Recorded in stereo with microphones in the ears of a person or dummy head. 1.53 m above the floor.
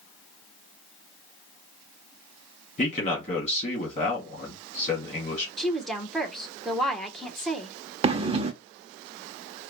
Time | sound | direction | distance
2.8 | a man speaking | 45° left (ahead or behind) | 2 m
5.6 | a woman speaking | 5° left (ahead or behind) | 1.1 m
8.0 | breathing | 30° right (ahead or behind) | 0.5 m